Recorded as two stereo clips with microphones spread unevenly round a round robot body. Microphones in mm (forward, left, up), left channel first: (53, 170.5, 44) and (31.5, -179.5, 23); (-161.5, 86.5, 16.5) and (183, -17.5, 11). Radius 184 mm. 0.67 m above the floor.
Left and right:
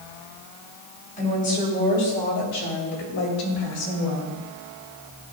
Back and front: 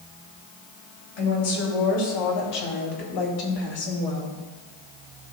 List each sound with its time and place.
1.2 s a woman speaking: 160° left, 3.5 m; by 4.4 s 130° left, 2.5 m